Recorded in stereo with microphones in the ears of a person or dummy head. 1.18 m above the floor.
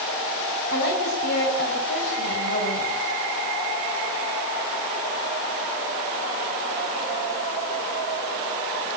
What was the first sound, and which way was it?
A woman speaking, 60° left (ahead or behind).